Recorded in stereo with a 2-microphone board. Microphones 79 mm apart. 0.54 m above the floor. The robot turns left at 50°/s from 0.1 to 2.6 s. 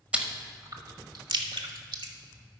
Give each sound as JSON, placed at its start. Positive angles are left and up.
{"t": 0.1, "sound": "chewing", "side_deg": -15, "distance_m": 0.9}